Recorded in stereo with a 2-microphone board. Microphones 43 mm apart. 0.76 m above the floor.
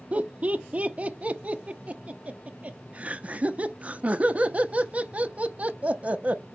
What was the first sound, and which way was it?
Laughter, 35° right (ahead or behind).